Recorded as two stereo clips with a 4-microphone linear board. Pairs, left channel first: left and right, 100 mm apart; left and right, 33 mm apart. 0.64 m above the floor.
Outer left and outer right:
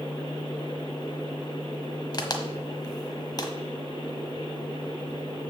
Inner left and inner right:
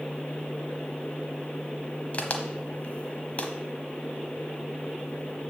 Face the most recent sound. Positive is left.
turn(degrees=40)  # may be behind; listen again after turning